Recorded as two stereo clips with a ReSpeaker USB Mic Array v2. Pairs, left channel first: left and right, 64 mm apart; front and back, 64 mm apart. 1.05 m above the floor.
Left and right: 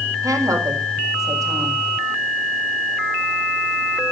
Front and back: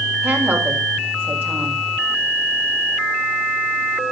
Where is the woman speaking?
125° right, 6 m.